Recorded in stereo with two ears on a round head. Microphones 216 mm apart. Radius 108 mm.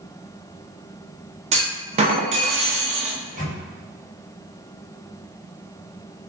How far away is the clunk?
About 0.6 m.